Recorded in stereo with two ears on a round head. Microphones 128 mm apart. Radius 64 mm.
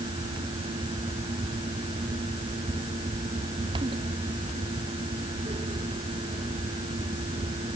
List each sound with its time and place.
Only background noise.